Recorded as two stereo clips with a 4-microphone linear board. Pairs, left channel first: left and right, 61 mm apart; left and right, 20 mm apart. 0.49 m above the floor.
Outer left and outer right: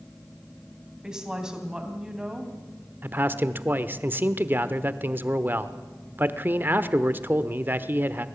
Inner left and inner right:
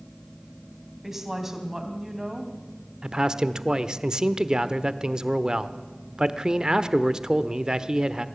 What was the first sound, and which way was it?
A woman speaking, 10° right (ahead or behind).